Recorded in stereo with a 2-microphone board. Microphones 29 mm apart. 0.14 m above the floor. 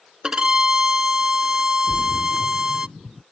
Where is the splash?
35° right (ahead or behind).